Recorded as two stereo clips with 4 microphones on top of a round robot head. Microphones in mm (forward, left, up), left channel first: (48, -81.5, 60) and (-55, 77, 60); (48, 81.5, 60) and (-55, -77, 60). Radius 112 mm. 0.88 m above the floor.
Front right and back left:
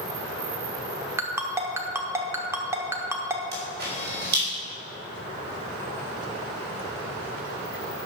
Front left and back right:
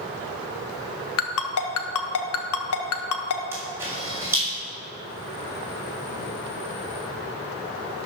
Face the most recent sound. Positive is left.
turn(degrees=160)